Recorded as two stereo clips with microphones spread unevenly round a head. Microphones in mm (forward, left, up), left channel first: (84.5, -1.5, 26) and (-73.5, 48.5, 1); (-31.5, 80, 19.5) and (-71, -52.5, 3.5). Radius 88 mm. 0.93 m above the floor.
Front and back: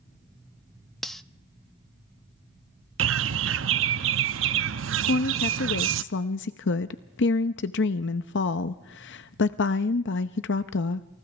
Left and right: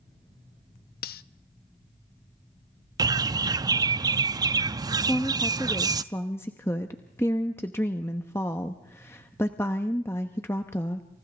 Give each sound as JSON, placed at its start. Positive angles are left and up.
{"t": 1.0, "sound": "cutlery clinking", "azimuth_deg": 70, "distance_m": 0.5}
{"t": 3.0, "sound": "a bird", "azimuth_deg": -175, "distance_m": 0.6}
{"t": 5.0, "sound": "a woman speaking", "azimuth_deg": -5, "distance_m": 0.8}